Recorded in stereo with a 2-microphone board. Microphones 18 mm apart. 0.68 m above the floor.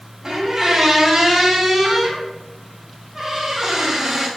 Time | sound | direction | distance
0.2 | a squeak | 25° right (ahead or behind) | 0.8 m